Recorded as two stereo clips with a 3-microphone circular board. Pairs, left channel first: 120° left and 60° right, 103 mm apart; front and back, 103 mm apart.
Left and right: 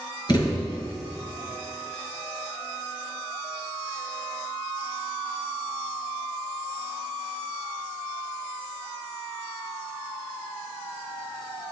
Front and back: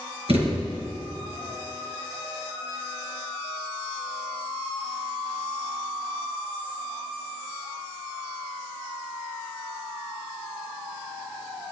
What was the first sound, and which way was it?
A thud, 165° left.